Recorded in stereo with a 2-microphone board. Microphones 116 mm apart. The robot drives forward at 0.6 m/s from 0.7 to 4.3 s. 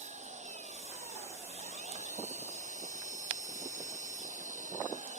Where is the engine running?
75° right (ahead or behind); by 5.2 s 85° right.